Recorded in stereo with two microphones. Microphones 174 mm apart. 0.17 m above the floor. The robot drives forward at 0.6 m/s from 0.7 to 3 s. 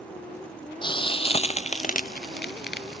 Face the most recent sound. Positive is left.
turn(degrees=70)  # may be behind; listen again after turning